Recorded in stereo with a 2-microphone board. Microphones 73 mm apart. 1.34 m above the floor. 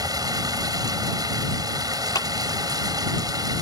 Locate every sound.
0.0 s running water: 65° right (ahead or behind)
2.1 s a clap: 65° left (ahead or behind)